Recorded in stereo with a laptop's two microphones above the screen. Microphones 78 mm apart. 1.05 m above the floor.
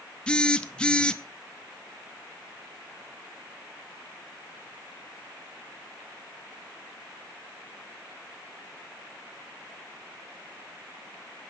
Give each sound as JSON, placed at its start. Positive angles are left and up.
{"t": 0.3, "sound": "a phone buzzing", "side_deg": 10, "distance_m": 0.6}